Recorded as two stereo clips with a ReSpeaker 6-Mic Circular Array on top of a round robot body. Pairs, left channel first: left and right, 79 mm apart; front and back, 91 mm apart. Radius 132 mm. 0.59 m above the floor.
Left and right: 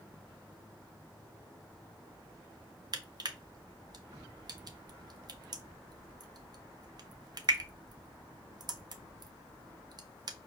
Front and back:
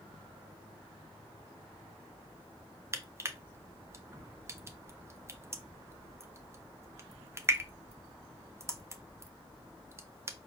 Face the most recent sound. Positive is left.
turn(degrees=-120)